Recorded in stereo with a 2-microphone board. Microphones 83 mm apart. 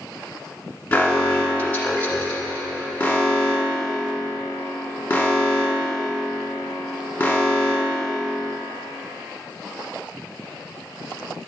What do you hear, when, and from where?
0.9 s an alarm: 20° left (ahead or behind), 1.3 m